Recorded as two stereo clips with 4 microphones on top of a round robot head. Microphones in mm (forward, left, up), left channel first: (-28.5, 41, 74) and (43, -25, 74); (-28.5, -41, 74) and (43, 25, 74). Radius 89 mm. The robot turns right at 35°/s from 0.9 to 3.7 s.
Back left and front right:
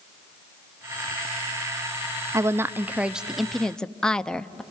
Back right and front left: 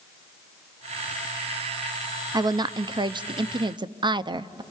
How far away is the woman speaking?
About 0.7 m.